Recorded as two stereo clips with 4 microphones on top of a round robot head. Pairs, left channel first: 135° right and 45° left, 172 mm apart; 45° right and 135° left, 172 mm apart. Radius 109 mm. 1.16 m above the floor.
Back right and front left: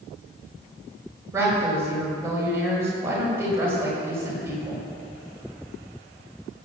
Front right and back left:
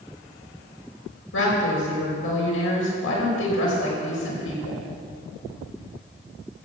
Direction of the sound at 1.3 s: 30° right.